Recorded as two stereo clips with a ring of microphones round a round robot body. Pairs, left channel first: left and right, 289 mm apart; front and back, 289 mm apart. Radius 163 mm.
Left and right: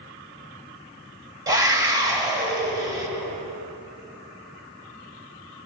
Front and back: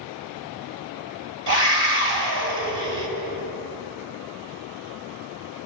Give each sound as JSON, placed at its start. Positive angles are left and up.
{"t": 1.5, "sound": "a scream", "azimuth_deg": -165, "distance_m": 2.5}